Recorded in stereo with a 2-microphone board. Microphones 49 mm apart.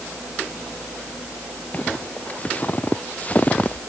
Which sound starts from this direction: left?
Footsteps, at 1.7 s.